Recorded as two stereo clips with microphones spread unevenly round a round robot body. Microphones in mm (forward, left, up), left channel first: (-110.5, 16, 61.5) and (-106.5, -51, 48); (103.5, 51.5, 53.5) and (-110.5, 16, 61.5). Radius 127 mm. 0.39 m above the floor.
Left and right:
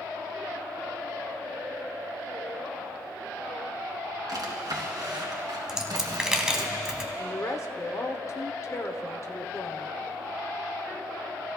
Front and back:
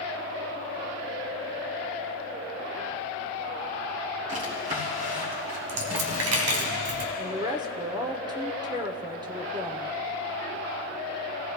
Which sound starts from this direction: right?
A drawer, at 4.3 s.